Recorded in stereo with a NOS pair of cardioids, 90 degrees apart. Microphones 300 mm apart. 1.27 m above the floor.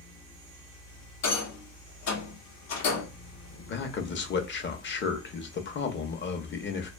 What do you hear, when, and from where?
0.0 s a fan: 60° left, 1.0 m
1.2 s a rattle: 60° left, 0.8 m
3.7 s a man speaking: 40° left, 0.7 m